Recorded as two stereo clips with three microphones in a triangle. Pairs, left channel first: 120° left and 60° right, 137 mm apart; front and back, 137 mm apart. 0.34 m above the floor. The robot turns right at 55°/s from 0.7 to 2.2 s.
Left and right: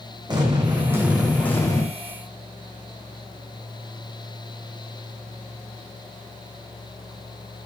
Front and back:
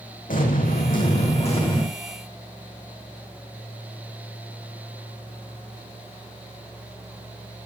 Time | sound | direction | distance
0.3 | an explosion | straight ahead | 3.5 m